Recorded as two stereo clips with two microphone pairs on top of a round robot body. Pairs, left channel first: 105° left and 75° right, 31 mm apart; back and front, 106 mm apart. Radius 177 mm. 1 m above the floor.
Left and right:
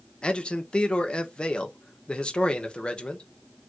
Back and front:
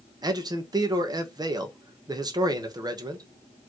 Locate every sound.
0.2 s a man speaking: 50° left, 1.4 m